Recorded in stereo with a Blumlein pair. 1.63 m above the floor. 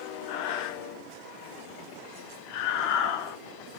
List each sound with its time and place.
0.3 s breathing: 45° left, 0.6 m